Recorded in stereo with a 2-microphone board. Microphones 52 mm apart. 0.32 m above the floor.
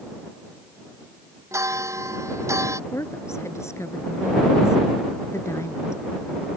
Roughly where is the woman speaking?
Left.